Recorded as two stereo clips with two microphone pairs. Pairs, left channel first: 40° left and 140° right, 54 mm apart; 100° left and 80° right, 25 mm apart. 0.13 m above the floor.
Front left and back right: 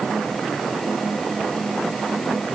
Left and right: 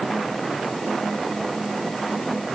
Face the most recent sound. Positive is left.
No sound to turn to.